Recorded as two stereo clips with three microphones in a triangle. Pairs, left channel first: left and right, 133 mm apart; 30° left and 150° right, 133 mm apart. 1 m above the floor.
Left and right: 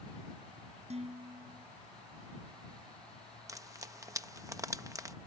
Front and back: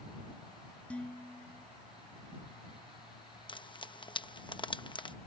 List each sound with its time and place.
0.9 s dishes clattering: 50° right
3.5 s frying: 25° right